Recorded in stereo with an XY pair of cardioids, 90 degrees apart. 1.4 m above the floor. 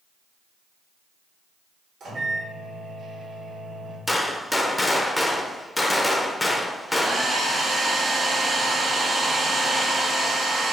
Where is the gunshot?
15° left, 0.6 m.